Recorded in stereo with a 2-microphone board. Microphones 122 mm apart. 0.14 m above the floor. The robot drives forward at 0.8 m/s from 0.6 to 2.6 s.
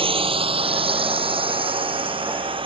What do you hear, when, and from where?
0.0 s a drone: 45° right (ahead or behind)